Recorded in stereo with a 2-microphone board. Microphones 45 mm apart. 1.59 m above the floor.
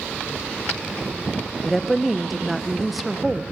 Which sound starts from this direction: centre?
A woman speaking, at 1.6 s.